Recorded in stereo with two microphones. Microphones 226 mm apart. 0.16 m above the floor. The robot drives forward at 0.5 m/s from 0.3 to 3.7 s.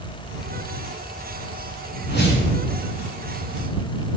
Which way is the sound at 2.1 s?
50° left (ahead or behind).